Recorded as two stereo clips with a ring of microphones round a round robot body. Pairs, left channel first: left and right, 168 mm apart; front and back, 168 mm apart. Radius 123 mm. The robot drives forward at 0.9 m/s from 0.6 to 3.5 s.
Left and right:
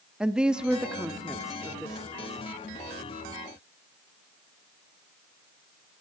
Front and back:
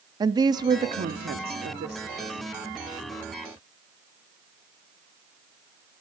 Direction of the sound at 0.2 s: 170° right.